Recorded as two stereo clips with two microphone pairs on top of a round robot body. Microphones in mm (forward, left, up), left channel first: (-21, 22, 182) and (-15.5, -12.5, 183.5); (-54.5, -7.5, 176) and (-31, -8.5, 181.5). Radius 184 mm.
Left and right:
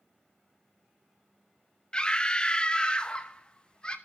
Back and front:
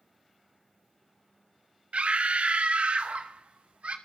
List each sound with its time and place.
1.9 s a scream: 35° left, 1.5 m